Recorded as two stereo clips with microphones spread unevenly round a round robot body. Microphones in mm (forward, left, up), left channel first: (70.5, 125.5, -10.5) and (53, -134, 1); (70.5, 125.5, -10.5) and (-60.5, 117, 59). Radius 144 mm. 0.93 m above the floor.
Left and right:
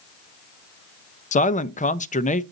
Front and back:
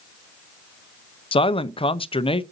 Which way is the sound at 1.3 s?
25° left.